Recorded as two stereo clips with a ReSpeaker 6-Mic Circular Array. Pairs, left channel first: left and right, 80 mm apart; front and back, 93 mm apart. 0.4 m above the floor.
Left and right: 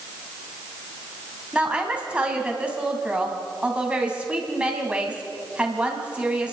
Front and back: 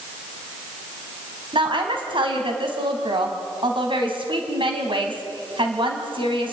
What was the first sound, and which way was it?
A woman speaking, 165° right.